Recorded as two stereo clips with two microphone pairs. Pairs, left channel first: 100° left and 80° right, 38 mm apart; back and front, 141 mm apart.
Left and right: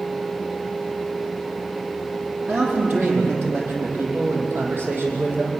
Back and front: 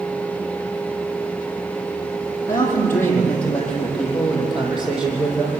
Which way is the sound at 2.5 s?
110° right.